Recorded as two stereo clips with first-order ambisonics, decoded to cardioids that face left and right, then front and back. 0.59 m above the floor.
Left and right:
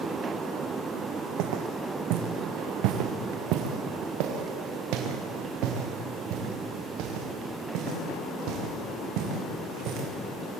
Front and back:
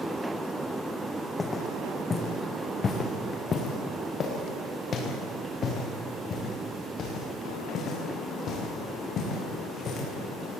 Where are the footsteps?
75° right, 2.0 m; by 10.1 s 60° right, 6.5 m.